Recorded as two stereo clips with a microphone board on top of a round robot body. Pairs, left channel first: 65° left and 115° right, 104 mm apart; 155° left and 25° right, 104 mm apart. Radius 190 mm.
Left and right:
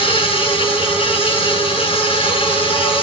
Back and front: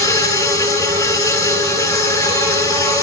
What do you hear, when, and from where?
0.0 s an insect: 95° left, 9.5 m